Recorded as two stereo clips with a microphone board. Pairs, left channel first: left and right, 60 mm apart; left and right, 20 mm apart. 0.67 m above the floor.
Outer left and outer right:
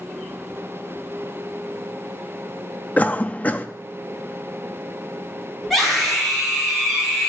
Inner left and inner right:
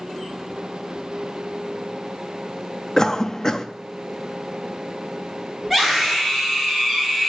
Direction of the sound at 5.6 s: Centre (ahead or behind).